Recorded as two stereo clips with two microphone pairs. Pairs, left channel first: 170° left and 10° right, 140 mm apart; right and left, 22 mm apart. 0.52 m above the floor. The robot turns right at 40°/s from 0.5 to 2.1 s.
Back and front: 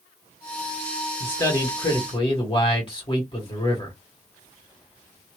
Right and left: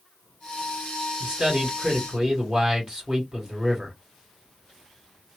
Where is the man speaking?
95° left, 1.6 m; by 4.0 s 130° left, 1.6 m.